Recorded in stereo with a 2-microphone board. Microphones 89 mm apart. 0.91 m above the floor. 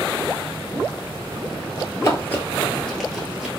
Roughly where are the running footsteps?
Left.